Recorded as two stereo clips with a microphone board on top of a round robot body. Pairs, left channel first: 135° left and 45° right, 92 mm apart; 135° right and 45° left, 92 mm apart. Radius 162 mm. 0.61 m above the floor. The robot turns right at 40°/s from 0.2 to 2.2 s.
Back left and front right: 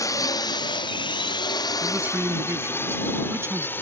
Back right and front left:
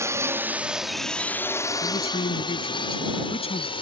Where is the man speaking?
130° right; by 3.7 s 110° right.